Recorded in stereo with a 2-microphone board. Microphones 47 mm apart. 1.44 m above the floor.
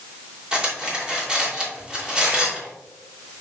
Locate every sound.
0.5 s cutlery clinking: 15° right (ahead or behind), 2.5 m